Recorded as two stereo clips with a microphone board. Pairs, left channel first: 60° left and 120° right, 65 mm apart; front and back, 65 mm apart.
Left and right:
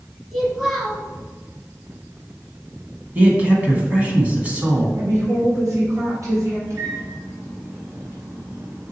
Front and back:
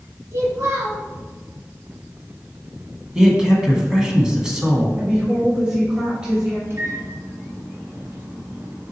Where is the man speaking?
120° right, 1.3 m.